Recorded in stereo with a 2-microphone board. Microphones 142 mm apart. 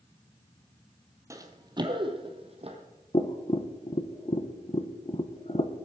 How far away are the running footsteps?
About 1.4 m.